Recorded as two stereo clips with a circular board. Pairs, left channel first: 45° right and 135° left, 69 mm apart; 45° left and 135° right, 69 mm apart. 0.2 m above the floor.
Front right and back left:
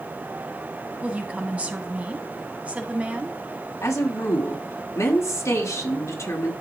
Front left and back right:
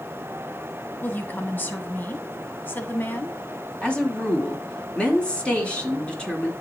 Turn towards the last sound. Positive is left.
turn(degrees=-20)